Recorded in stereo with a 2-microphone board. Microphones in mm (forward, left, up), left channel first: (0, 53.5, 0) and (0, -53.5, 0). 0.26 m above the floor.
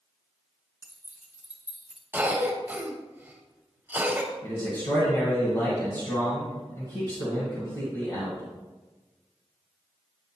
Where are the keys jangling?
20° right (ahead or behind), 2.5 m; by 2.0 s 5° right (ahead or behind), 1.7 m.